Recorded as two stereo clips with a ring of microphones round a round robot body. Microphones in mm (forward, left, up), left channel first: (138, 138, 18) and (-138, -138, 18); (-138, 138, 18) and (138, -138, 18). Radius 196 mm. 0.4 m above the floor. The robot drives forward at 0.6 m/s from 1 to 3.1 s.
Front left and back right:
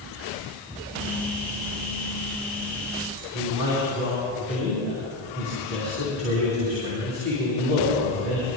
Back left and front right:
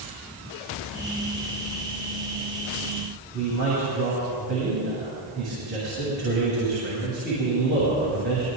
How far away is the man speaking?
About 8 m.